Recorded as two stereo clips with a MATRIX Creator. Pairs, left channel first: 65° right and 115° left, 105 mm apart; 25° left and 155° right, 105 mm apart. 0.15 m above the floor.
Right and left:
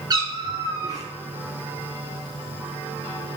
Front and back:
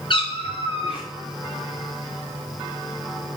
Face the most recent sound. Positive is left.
turn(degrees=60)